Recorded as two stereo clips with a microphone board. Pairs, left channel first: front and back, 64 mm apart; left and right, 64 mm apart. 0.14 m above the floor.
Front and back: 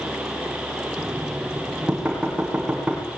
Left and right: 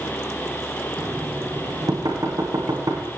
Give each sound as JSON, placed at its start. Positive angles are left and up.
{"t": 1.0, "sound": "knocking", "azimuth_deg": -105, "distance_m": 8.5}